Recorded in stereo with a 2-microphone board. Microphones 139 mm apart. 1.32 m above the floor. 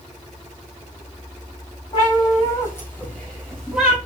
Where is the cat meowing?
35° left (ahead or behind), 4.5 m; by 4.0 s 5° right (ahead or behind), 4.5 m.